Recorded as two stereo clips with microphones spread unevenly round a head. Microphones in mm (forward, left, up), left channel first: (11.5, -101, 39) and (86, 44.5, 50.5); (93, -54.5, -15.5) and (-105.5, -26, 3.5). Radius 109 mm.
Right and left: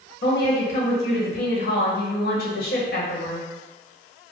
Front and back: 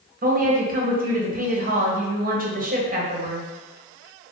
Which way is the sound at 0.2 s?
145° right.